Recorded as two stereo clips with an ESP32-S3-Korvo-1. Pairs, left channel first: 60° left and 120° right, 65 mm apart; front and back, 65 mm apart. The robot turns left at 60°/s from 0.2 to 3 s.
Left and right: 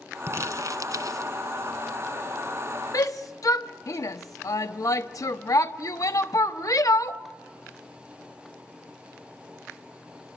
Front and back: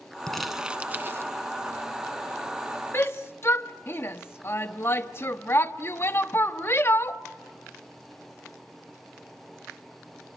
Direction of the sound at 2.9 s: 50° left.